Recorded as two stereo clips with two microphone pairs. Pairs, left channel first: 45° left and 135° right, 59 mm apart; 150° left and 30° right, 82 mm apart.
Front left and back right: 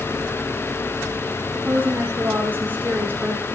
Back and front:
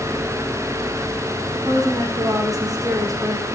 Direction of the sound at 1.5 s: 75° right.